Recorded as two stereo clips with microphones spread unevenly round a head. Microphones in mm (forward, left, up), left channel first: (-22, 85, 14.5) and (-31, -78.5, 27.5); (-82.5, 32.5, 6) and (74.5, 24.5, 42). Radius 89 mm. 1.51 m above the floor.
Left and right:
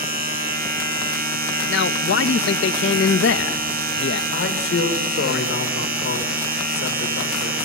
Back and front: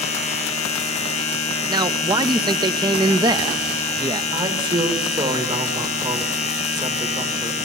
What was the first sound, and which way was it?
A machine running, 125° right.